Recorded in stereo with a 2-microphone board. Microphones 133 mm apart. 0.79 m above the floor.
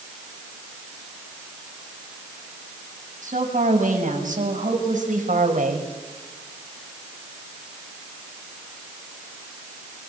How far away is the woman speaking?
About 6.5 m.